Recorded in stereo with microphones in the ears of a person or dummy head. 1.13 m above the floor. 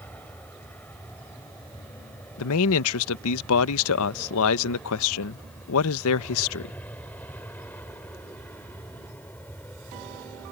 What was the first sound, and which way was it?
An aircraft, 5° left (ahead or behind).